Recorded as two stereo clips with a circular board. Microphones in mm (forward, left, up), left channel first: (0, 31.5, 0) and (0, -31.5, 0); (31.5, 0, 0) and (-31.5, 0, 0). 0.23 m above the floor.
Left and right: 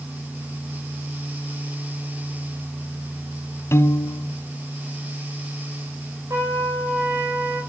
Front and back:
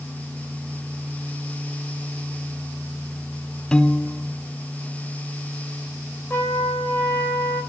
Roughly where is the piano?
Left.